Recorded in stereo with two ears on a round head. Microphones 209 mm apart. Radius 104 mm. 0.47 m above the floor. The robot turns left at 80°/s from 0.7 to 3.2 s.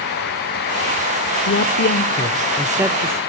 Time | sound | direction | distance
1.5 | a man speaking | 100° left | 1.0 m